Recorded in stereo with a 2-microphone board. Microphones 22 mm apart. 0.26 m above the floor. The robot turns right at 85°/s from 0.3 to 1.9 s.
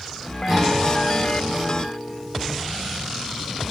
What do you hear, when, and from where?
0.5 s a guitar: 20° right, 8 m; by 2.6 s 100° left, 8 m